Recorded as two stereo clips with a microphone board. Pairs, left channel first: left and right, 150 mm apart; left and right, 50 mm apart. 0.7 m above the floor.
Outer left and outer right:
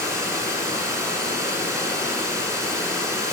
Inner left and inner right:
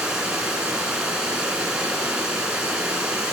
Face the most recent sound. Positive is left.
turn(degrees=-20)  # may be behind; listen again after turning